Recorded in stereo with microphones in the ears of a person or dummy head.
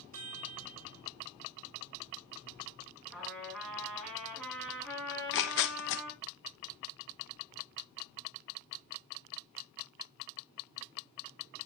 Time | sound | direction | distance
0.1 | a chime | 45° right (ahead or behind) | 3.5 m
3.1 | a trumpet | centre (ahead or behind) | 5 m
5.1 | tearing paper | 70° left (ahead or behind) | 0.8 m